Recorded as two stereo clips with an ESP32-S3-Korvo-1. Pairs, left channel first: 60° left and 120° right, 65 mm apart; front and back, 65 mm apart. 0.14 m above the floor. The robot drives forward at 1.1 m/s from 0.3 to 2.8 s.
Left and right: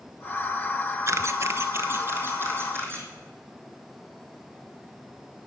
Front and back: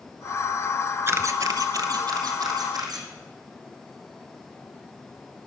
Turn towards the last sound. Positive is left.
turn(degrees=-175)